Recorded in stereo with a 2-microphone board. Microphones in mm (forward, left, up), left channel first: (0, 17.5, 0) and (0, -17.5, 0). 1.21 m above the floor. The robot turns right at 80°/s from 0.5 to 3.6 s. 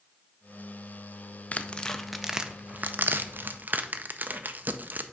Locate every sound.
1.5 s tearing paper: 40° left (ahead or behind), 0.5 m; by 5.0 s 55° right (ahead or behind), 0.5 m